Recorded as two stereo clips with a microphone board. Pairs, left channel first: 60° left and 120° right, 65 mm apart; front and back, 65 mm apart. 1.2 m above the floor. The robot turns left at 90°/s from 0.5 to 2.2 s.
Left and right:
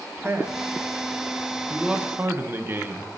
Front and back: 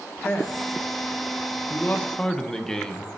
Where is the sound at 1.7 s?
30° right, 0.9 m; by 3.2 s 75° right, 0.9 m.